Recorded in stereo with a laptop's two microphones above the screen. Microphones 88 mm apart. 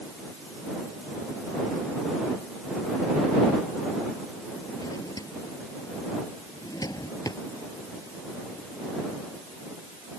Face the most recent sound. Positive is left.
turn(degrees=45)  # may be behind; listen again after turning